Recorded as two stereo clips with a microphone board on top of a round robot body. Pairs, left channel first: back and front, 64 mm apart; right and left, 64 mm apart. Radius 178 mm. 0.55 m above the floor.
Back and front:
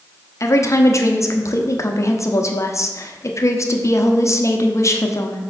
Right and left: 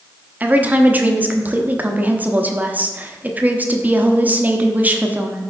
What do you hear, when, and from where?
0.4 s a woman speaking: 150° left, 1.1 m